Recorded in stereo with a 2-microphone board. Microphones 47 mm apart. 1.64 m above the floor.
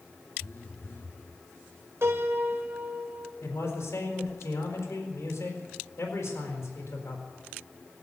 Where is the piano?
65° right (ahead or behind), 2.5 m.